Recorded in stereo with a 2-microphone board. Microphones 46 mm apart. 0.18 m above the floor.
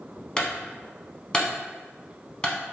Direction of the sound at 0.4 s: 20° left (ahead or behind).